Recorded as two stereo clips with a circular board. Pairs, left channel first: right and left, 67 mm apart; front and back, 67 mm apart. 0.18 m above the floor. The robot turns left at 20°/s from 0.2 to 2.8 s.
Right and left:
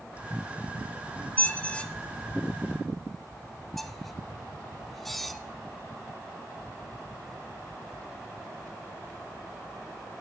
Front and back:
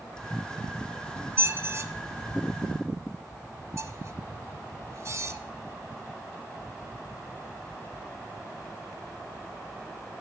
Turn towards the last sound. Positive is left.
turn(degrees=180)